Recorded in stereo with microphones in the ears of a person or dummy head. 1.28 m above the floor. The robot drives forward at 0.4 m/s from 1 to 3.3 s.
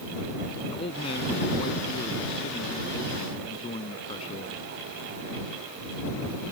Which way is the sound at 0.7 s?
30° left (ahead or behind).